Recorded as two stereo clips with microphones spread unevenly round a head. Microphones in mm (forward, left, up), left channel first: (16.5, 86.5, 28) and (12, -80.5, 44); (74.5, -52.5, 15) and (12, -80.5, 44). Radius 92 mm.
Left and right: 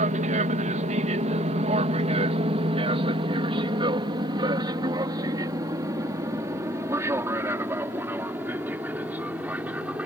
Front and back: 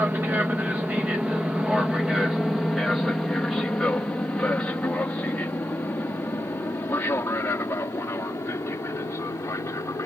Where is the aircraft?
85° right; by 10.1 s 10° right.